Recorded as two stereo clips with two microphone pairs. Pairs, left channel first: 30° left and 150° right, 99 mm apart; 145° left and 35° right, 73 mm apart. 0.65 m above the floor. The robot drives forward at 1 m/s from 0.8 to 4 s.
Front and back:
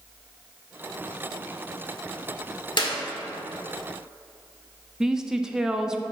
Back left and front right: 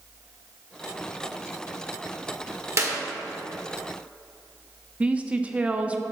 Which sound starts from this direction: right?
A woman speaking, at 5.0 s.